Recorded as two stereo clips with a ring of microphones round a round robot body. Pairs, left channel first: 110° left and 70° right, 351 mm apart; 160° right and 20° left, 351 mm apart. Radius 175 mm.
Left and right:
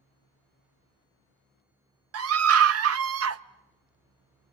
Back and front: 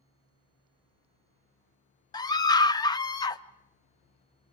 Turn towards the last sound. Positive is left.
turn(degrees=-85)